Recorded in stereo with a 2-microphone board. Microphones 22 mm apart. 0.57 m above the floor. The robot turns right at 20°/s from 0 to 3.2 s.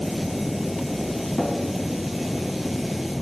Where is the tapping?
65° left (ahead or behind), 3 m.